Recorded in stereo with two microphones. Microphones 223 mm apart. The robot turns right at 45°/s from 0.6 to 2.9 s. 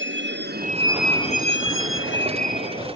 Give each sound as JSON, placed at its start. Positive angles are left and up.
{"t": 0.0, "sound": "a vehicle", "side_deg": -70}